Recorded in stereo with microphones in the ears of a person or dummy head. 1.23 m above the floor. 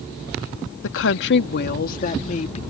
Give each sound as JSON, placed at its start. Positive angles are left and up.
{"t": 0.8, "sound": "a woman speaking", "side_deg": 80}